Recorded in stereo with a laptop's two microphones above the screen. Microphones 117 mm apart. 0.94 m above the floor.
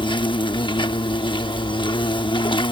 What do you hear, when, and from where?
0.0 s an insect: 45° left (ahead or behind)